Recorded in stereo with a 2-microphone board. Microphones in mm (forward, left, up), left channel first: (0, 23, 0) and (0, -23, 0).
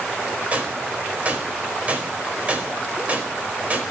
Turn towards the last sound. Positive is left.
turn(degrees=-30)  # may be behind; listen again after turning